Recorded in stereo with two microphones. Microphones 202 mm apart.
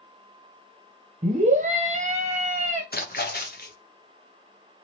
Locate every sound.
1.2 s a scream: 35° right (ahead or behind), 1.0 m
2.9 s a splash: 50° left (ahead or behind), 0.6 m